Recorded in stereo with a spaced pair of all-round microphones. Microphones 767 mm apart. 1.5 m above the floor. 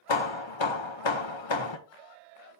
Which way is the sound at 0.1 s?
35° left (ahead or behind).